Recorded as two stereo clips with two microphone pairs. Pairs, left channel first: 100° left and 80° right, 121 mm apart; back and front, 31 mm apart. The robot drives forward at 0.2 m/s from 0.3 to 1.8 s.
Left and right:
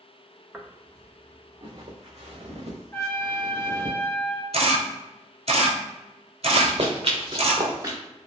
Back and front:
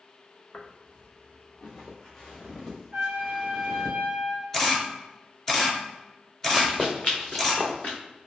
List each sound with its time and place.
0.5 s footsteps: 165° right, 0.7 m; by 3.9 s 100° right, 1.9 m
2.9 s a trumpet: 35° left, 0.7 m
4.5 s a camera shutter: 105° right, 0.7 m
6.5 s running footsteps: 105° right, 0.8 m; by 8.0 s 145° right, 1.3 m